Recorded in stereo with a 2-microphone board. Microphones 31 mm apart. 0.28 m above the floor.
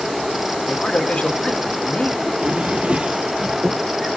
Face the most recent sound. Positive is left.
turn(degrees=-40)  # may be behind; listen again after turning